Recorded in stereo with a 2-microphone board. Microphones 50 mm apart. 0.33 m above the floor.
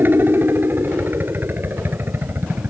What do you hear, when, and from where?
0.0 s a helicopter: 50° right (ahead or behind)